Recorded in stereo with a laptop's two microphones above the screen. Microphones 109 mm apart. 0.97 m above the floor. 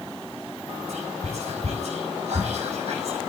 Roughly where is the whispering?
Right.